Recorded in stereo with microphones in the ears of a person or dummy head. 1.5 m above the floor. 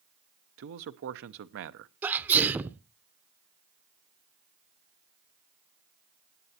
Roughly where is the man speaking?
Right.